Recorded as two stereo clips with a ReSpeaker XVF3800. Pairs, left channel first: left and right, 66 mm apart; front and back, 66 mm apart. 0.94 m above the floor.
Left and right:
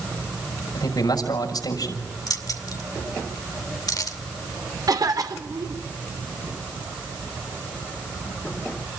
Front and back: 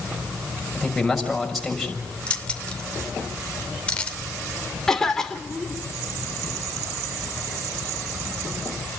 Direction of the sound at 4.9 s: 80° right.